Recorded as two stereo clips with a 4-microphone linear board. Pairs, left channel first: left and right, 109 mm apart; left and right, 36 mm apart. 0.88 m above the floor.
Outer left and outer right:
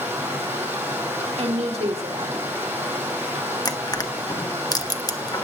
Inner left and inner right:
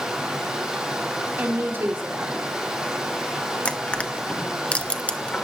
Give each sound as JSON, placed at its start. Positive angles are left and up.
{"t": 0.0, "sound": "running water", "side_deg": -20, "distance_m": 5.5}
{"t": 1.4, "sound": "a woman speaking", "side_deg": -75, "distance_m": 2.5}
{"t": 3.6, "sound": "crushing", "side_deg": 35, "distance_m": 1.1}